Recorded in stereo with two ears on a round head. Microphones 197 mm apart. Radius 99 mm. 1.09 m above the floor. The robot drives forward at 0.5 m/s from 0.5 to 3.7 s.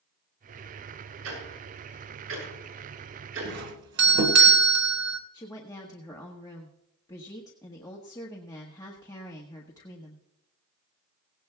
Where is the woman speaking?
15° left (ahead or behind), 1.4 m.